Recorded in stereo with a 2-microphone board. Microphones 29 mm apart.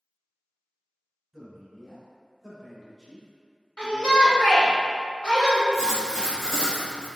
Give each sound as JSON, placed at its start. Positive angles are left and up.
{"t": 1.3, "sound": "a man speaking", "side_deg": -5, "distance_m": 1.7}
{"t": 3.8, "sound": "a shout", "side_deg": 35, "distance_m": 1.6}
{"t": 5.7, "sound": "writing", "side_deg": 0, "distance_m": 1.5}